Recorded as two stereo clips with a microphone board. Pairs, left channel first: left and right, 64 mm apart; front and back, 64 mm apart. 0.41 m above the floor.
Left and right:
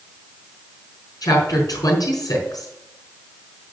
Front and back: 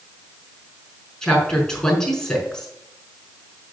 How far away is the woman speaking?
About 5 m.